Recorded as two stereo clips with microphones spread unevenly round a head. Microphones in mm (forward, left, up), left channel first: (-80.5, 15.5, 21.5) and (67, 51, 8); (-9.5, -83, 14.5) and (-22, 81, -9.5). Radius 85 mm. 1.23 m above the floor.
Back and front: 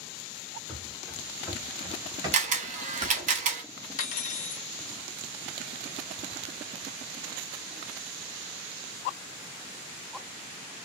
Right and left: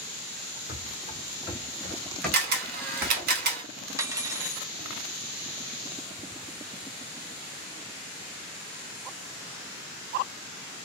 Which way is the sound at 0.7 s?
90° right.